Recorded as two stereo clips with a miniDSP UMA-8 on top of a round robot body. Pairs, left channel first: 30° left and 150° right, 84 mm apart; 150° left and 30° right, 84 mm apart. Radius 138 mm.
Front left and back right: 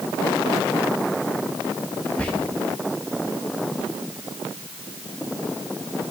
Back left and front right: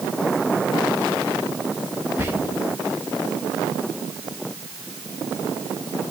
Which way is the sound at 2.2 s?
20° right.